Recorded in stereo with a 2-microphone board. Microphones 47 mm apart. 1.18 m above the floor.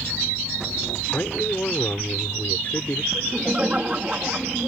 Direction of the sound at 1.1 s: 45° left (ahead or behind).